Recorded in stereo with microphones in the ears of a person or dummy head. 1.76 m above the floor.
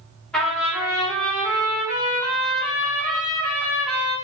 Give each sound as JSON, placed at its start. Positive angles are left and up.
{"t": 0.3, "sound": "a trumpet", "side_deg": 5, "distance_m": 1.3}